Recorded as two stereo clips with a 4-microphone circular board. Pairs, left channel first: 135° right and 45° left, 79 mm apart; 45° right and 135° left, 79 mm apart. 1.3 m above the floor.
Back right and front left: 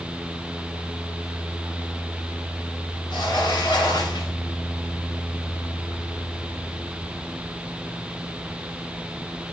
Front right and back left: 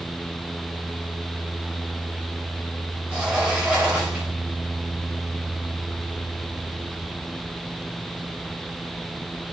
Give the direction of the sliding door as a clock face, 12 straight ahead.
5 o'clock.